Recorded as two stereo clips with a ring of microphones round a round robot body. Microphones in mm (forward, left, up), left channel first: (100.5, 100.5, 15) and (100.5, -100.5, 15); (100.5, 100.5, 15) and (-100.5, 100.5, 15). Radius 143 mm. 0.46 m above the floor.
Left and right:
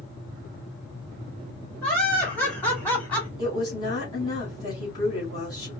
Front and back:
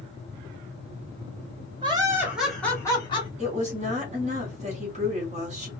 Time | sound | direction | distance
1.8 | laughter | 170° left | 1.5 m
3.4 | a woman speaking | 150° left | 1.5 m